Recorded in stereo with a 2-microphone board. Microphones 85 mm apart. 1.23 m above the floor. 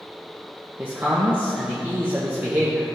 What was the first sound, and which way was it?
A man speaking, 25° right (ahead or behind).